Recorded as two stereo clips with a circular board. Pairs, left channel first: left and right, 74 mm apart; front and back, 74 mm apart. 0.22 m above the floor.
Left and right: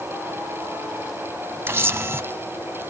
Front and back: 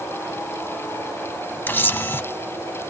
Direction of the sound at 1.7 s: 50° right.